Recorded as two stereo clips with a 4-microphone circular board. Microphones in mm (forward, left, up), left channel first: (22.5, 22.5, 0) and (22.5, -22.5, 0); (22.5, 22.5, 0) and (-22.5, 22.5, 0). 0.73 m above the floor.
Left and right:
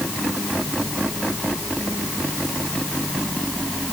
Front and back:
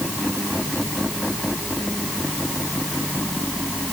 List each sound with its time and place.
Only background noise.